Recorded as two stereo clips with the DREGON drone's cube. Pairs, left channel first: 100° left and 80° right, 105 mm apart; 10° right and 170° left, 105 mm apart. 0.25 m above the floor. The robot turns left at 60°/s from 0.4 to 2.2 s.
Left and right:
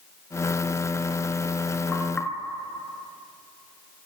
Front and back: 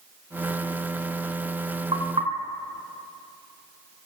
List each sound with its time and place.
1.9 s knocking: 170° right, 3 m; by 2.3 s 170° left, 3 m